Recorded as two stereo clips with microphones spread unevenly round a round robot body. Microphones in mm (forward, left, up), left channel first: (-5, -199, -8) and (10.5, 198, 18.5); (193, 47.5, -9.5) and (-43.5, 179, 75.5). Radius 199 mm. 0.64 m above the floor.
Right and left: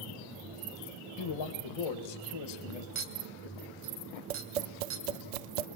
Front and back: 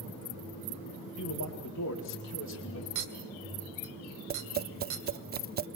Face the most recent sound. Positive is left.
turn(degrees=90)